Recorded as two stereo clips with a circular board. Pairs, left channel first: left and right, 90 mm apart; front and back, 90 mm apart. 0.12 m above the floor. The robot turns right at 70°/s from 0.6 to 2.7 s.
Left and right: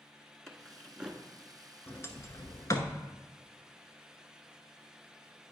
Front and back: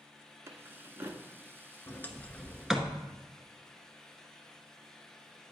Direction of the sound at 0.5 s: 170° left.